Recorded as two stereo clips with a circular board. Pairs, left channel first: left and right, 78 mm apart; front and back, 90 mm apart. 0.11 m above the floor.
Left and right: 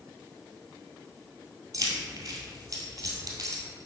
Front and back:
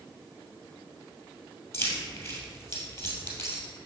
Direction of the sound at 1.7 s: 55° right.